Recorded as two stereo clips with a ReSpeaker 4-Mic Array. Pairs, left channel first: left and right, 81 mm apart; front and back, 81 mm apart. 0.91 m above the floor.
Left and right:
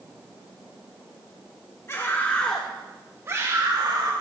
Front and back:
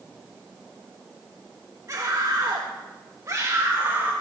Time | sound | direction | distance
1.9 | a scream | 140° left | 1.8 m